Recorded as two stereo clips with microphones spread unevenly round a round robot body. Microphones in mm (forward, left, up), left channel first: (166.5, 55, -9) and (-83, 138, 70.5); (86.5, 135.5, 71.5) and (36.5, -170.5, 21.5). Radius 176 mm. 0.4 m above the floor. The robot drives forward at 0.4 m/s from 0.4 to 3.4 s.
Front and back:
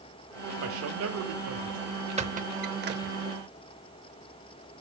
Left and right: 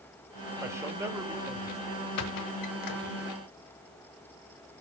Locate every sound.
0.6 s a man speaking: 165° right, 1.0 m; by 2.1 s 170° right, 1.5 m
2.2 s a squeak: 90° left, 1.1 m; by 3.2 s 110° left, 1.2 m